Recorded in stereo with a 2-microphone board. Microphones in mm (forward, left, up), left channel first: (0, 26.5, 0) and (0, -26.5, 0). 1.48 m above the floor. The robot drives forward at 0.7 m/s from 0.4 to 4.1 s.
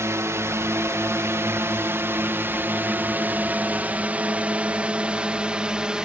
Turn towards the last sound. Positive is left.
turn(degrees=-15)  # may be behind; listen again after turning